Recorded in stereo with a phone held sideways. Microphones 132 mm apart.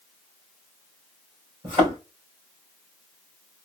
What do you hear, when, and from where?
1.6 s a thud: 40° right (ahead or behind), 3 m